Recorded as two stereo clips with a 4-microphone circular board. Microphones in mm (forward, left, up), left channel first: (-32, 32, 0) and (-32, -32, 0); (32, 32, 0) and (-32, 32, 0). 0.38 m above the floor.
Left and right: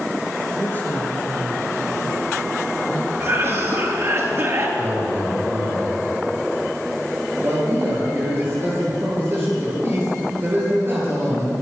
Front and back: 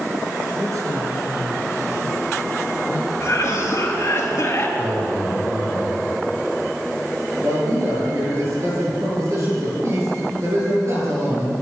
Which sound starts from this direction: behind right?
A man speaking, at 4.8 s.